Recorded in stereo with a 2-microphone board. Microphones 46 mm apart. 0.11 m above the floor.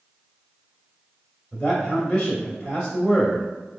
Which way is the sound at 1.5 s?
25° left (ahead or behind).